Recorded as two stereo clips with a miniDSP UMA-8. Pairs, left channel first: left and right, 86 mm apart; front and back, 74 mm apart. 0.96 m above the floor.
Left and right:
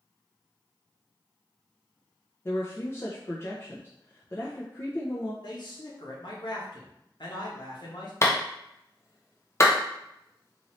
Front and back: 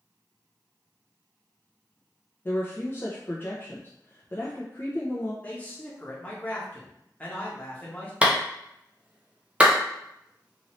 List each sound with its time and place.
2.5 s a woman speaking: 45° left, 0.5 m
5.4 s a man speaking: 70° left, 1.0 m
8.2 s a clap: 120° left, 0.6 m